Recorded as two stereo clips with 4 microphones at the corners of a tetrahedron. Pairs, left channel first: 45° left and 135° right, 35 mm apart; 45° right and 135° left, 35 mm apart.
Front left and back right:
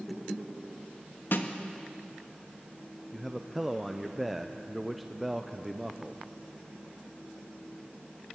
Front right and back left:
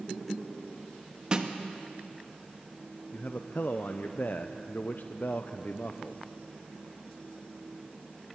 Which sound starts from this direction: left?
A snare drum, at 1.3 s.